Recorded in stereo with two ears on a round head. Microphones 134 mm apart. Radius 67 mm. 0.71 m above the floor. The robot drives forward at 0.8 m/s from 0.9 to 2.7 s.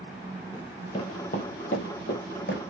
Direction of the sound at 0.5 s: 20° left (ahead or behind).